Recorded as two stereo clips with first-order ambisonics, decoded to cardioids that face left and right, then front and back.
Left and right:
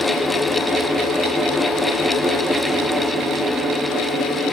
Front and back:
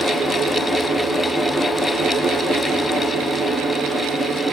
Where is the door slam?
No door slam in this recording.